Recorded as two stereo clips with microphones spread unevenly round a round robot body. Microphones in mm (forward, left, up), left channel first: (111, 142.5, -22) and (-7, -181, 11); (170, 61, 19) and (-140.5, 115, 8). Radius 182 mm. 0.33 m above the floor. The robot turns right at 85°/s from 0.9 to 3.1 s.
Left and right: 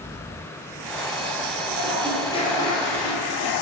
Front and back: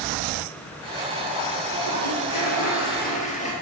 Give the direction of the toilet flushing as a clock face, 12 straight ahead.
2 o'clock.